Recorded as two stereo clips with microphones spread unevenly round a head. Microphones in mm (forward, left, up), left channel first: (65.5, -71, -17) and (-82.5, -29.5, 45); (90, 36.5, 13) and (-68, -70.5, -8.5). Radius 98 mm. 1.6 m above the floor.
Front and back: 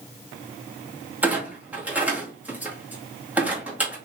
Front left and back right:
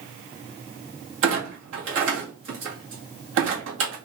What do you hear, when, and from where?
1.2 s a clunk: 125° right, 1.8 m